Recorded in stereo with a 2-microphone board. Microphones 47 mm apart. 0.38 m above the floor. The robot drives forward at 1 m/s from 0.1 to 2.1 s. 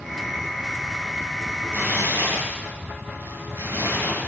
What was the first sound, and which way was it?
Tearing paper, 65° right (ahead or behind).